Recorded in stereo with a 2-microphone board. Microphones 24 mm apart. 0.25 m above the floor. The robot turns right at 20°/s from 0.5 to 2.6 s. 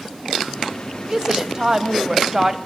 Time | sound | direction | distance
1.1 | a woman speaking | 25° right (ahead or behind) | 1.3 m